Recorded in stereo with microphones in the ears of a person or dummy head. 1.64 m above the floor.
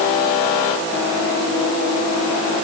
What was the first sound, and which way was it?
Only background noise.